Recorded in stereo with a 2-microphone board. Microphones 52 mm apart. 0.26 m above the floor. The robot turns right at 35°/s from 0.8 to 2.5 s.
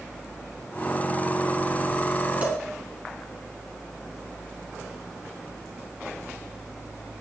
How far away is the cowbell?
About 3 m.